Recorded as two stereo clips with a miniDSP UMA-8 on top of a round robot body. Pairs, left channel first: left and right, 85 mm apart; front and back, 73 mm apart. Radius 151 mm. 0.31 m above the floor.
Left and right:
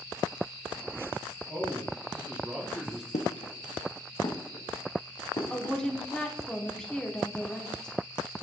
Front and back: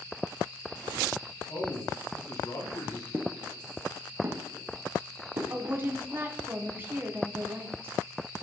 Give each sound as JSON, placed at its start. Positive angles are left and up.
{"t": 1.5, "sound": "a man speaking", "azimuth_deg": -20, "distance_m": 2.5}
{"t": 3.1, "sound": "footsteps", "azimuth_deg": 105, "distance_m": 1.0}
{"t": 5.5, "sound": "a woman speaking", "azimuth_deg": 165, "distance_m": 1.3}